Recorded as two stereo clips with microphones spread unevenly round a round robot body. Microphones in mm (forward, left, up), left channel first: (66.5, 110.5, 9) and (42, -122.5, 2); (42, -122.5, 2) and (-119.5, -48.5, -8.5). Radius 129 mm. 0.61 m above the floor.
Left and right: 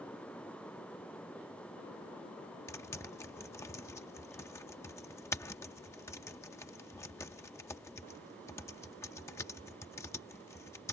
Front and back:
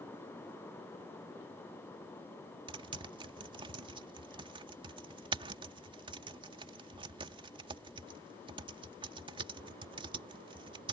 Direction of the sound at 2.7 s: 155° left.